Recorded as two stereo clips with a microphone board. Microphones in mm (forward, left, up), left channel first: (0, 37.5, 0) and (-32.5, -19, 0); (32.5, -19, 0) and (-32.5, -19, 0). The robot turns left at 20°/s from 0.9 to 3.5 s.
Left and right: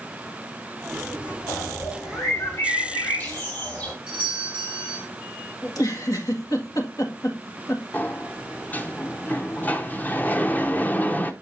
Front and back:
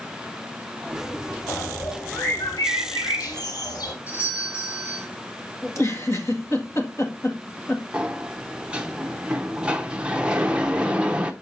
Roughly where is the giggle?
Ahead left.